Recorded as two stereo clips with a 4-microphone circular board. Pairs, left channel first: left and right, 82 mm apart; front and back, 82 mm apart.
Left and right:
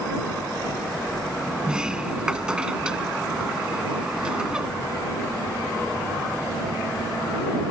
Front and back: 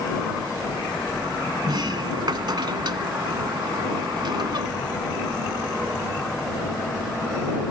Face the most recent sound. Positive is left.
turn(degrees=-170)